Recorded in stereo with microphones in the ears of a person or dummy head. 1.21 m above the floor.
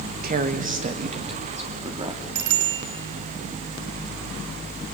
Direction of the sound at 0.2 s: 45° right (ahead or behind).